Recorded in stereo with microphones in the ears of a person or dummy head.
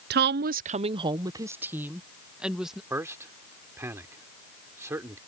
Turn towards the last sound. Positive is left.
turn(degrees=-10)  # may be behind; listen again after turning